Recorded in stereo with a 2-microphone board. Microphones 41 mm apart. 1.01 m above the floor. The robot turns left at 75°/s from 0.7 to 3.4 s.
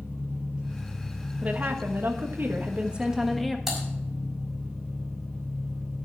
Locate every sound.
0.0 s an engine running: 160° right, 4.5 m; by 6.0 s straight ahead, 4.5 m
1.4 s a woman speaking: 35° right, 1.4 m; by 3.6 s 175° left, 1.4 m
3.7 s typing on a keyboard: 5° right (ahead or behind), 4.5 m